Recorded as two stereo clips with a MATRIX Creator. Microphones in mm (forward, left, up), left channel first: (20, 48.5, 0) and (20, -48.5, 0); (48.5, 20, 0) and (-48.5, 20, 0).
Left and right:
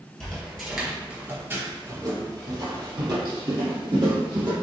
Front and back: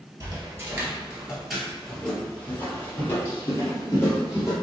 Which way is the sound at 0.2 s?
165° left.